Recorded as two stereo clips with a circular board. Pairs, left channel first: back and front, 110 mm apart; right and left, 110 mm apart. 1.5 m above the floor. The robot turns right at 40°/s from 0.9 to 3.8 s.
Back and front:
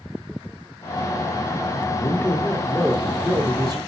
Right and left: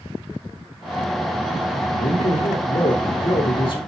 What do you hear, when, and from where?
1.9 s a man speaking: 125° right, 3.5 m; by 3.8 s 50° right, 3.5 m